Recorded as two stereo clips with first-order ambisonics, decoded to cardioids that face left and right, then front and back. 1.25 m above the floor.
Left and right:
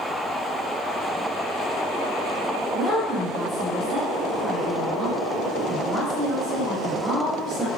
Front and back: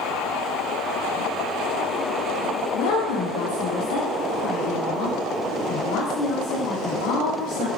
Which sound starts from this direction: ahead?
A woman speaking, at 2.7 s.